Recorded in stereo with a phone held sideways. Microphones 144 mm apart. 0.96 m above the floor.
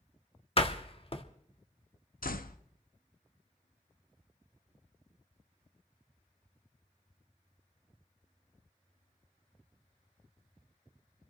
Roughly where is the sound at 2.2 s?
Left.